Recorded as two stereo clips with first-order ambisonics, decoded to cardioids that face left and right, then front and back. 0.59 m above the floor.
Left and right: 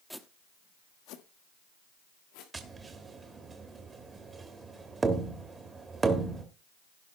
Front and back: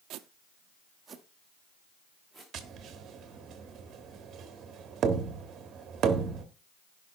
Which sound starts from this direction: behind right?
Tapping, at 2.5 s.